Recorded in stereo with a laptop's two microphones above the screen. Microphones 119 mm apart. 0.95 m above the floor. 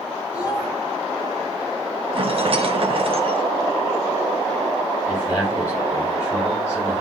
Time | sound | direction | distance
0.3 | a child speaking | 25° left (ahead or behind) | 4.5 m
2.1 | a rattle | 50° right (ahead or behind) | 0.7 m
5.1 | a man speaking | 20° left (ahead or behind) | 5 m